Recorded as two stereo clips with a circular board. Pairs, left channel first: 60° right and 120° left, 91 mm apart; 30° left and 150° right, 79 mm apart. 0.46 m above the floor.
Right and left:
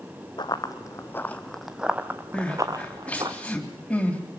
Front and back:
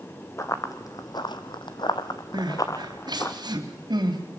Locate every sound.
0.4 s running footsteps: 20° right, 1.7 m; by 3.3 s 85° left, 2.5 m
2.3 s crying: 135° right, 3 m